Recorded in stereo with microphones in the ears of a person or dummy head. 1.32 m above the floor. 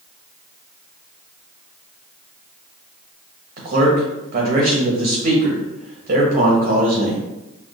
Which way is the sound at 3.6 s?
40° right (ahead or behind).